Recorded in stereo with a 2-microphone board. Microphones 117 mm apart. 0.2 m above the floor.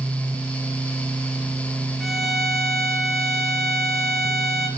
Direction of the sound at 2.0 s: Centre (ahead or behind).